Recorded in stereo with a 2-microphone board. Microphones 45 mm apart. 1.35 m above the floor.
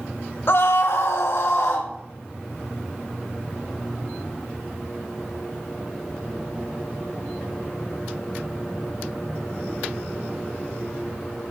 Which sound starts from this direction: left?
A scream, at 0.5 s.